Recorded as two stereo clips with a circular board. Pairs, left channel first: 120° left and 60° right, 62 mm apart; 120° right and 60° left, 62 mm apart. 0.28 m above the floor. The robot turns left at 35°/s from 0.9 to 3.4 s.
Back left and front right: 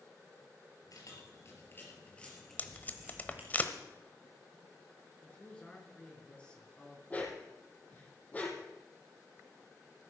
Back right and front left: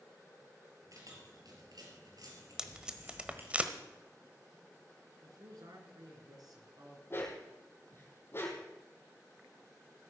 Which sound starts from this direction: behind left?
Tape being pulled, at 2.6 s.